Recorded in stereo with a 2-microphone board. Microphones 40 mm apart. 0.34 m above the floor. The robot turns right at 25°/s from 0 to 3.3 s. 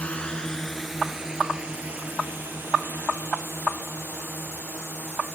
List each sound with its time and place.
0.0 s a drone: 35° left (ahead or behind); by 5.3 s 75° right (ahead or behind)